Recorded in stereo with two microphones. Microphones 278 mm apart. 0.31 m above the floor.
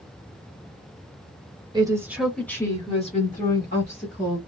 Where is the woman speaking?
15° right (ahead or behind), 1.0 m; by 4.4 s 45° left (ahead or behind), 1.5 m.